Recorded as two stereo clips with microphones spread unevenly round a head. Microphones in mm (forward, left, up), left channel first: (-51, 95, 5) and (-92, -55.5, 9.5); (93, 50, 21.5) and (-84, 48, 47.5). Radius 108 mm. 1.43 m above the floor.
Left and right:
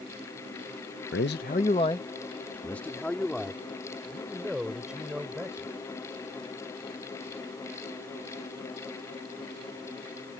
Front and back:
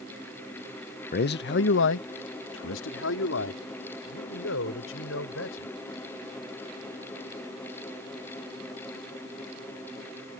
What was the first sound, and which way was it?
A man speaking, 40° left.